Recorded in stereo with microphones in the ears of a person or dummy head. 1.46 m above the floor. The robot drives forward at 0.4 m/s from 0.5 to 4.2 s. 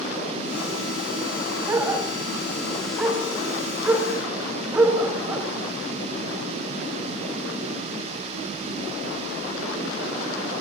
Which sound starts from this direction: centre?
A dog barking, at 1.7 s.